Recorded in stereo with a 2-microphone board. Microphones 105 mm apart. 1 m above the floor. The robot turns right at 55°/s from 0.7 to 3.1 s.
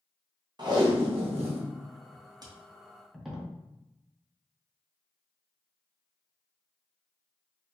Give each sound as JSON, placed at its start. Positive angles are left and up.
{"t": 0.6, "sound": "tape being pulled", "side_deg": -45, "distance_m": 0.6}